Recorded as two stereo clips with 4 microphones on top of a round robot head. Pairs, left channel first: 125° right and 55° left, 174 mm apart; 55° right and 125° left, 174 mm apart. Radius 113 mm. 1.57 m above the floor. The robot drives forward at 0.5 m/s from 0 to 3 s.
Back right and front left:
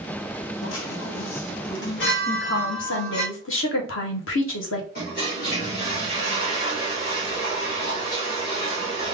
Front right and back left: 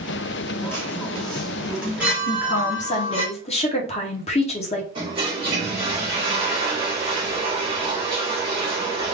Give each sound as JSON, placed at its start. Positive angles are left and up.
{"t": 0.6, "sound": "a chime", "azimuth_deg": -130, "distance_m": 0.9}
{"t": 2.3, "sound": "a woman speaking", "azimuth_deg": -95, "distance_m": 1.0}
{"t": 5.0, "sound": "a toilet flushing", "azimuth_deg": -170, "distance_m": 2.0}